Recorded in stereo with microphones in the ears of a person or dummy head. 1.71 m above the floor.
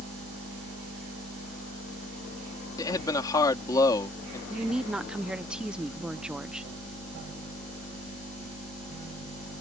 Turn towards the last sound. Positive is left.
turn(degrees=-5)  # may be behind; listen again after turning